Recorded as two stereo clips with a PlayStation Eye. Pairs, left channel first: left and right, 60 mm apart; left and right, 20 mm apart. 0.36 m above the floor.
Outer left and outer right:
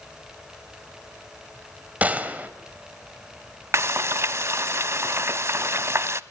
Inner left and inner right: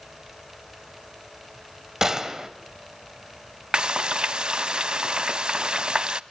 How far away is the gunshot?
About 2.0 m.